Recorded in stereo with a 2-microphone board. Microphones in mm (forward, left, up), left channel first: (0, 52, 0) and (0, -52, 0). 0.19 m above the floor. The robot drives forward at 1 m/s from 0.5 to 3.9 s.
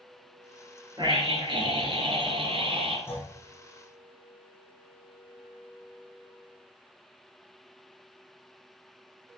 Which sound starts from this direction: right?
A scream, at 1.0 s.